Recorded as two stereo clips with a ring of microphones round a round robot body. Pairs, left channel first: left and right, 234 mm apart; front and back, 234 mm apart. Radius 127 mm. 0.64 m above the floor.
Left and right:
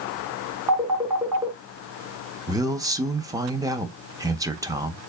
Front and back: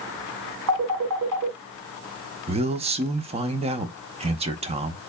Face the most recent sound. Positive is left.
turn(degrees=-150)